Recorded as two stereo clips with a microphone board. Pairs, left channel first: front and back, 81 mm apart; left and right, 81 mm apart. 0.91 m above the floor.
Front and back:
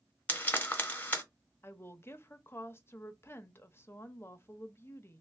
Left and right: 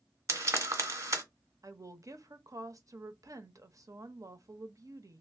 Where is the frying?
60° right, 0.9 m.